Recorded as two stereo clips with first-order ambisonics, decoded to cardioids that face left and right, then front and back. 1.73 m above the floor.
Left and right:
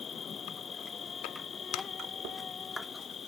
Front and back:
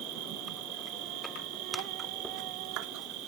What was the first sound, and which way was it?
An insect, 160° left.